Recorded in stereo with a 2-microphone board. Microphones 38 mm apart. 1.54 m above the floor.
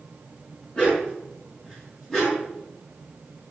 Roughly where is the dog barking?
Left.